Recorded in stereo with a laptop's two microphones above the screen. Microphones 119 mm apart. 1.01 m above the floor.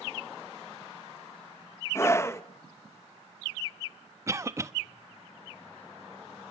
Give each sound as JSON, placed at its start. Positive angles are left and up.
{"t": 1.9, "sound": "a scream", "side_deg": 25, "distance_m": 1.1}
{"t": 4.3, "sound": "a cough", "side_deg": -25, "distance_m": 1.1}